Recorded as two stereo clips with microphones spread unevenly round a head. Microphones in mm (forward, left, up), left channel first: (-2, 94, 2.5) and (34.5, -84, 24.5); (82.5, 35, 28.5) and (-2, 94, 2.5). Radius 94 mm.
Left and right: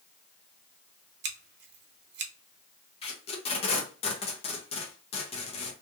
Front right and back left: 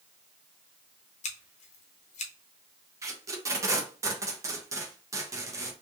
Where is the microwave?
I don't hear a microwave.